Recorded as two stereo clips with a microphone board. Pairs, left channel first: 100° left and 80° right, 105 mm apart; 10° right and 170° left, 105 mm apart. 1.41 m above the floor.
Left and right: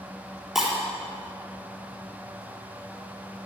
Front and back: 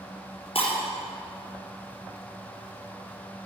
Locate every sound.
0.6 s breaking glass: 10° left, 4 m